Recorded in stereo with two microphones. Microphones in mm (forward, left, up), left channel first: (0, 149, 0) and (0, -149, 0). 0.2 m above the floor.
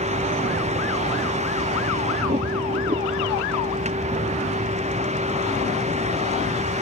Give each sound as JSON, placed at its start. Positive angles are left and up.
{"t": 0.0, "sound": "a vehicle", "side_deg": -20}